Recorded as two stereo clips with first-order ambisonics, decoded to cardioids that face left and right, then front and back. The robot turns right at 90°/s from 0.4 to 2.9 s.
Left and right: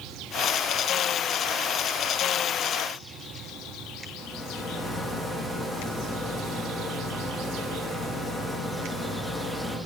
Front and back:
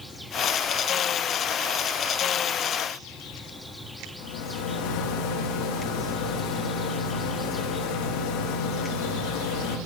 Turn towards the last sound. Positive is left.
turn(degrees=10)